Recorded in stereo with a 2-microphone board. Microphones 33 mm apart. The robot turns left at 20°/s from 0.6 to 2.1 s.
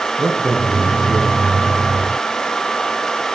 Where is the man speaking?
75° right (ahead or behind), 8 m.